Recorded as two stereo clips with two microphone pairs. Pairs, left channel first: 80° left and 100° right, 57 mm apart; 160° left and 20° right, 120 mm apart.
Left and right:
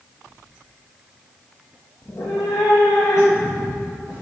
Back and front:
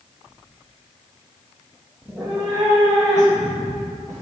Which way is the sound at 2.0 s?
55° left.